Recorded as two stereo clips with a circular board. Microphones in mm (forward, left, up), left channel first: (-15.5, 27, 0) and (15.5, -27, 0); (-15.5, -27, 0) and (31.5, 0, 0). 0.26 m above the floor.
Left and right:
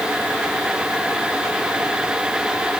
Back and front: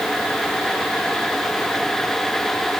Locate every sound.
Only background noise.